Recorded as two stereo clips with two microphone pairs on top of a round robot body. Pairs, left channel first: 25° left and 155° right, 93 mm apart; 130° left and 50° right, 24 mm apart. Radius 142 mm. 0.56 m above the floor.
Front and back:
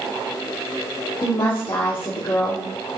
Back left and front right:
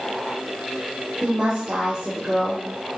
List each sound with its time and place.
1.2 s a woman speaking: 10° right, 2.5 m